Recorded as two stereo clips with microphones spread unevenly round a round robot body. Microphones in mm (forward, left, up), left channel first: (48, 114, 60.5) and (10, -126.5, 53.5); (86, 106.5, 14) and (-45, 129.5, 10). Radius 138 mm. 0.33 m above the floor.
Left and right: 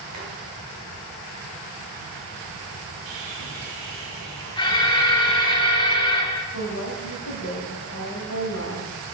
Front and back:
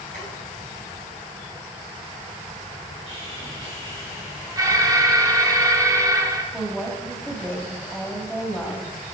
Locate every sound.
0.1 s boiling: 165° right, 3.5 m
3.1 s sawing: 100° right, 2.5 m
4.6 s an alarm: 140° left, 1.1 m
6.5 s a woman speaking: 80° left, 1.9 m